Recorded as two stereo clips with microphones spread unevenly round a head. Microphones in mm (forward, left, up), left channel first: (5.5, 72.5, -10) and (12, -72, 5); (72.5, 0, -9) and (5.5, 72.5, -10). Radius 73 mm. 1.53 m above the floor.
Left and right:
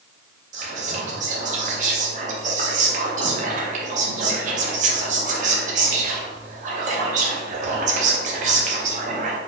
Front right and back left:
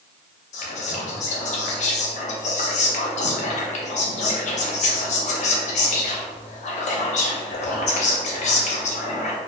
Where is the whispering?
45° right, 0.8 m.